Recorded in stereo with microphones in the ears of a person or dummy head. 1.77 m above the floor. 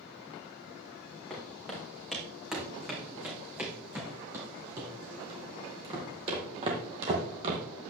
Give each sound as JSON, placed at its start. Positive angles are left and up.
{"t": 1.3, "sound": "footsteps", "side_deg": 5, "distance_m": 4.5}